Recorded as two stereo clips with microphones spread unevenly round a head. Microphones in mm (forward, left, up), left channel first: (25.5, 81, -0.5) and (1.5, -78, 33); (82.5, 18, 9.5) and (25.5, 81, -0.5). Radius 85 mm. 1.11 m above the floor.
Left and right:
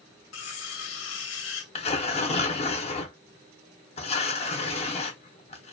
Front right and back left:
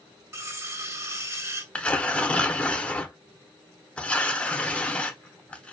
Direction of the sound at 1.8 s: 30° left.